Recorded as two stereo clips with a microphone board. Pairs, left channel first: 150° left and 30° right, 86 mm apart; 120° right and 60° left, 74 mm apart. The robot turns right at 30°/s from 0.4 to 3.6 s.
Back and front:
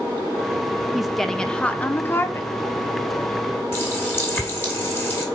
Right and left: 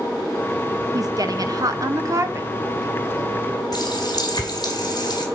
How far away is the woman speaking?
About 0.7 m.